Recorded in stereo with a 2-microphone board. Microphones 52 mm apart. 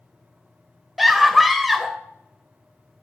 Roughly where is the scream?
Centre.